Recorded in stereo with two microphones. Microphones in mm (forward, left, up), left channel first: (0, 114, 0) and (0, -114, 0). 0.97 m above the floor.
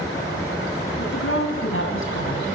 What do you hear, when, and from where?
1.0 s a woman speaking: 65° left (ahead or behind), 8.5 m; by 2.5 s 60° left (ahead or behind), 6.5 m